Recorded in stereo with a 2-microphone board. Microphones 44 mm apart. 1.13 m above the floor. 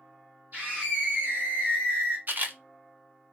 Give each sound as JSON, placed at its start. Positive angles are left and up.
{"t": 0.5, "sound": "a scream", "side_deg": -40, "distance_m": 1.6}
{"t": 2.3, "sound": "a camera shutter", "side_deg": -50, "distance_m": 1.1}